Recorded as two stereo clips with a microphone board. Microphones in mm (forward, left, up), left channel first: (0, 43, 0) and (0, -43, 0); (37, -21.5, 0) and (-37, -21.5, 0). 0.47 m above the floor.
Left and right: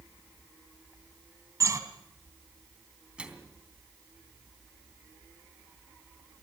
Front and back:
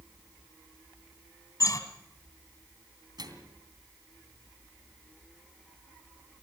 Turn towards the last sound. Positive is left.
turn(degrees=-165)